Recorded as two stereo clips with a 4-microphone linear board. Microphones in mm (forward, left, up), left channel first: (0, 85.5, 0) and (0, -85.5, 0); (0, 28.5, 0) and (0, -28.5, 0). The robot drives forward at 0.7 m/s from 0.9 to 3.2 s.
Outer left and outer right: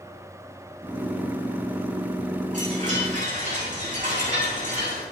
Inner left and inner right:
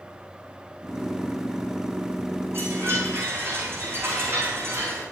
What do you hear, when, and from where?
2.5 s a chime: 50° right (ahead or behind), 8.5 m; by 5.0 s 45° right (ahead or behind), 9 m